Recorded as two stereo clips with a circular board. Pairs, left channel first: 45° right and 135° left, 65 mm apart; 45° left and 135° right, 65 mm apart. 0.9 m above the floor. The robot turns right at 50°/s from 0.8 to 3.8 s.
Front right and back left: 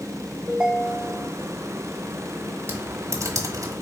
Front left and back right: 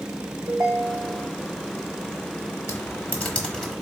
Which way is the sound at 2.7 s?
80° left.